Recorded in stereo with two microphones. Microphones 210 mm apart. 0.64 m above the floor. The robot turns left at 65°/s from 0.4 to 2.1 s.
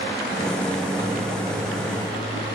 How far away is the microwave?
About 7 m.